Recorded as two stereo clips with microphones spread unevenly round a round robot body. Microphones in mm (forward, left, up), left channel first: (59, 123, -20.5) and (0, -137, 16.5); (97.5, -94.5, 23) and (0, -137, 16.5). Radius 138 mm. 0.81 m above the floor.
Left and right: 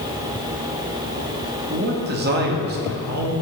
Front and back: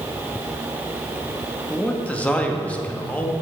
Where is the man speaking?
55° right, 1.6 m.